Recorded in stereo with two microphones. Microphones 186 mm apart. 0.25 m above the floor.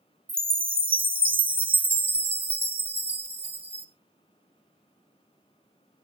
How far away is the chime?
About 0.8 m.